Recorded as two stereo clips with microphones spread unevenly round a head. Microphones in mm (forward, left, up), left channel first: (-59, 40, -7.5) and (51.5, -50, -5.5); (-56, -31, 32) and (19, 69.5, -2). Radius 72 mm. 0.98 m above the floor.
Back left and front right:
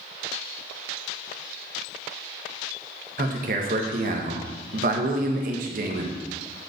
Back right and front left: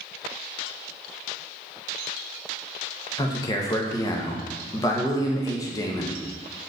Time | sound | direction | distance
3.2 | a man speaking | 55° right | 1.0 m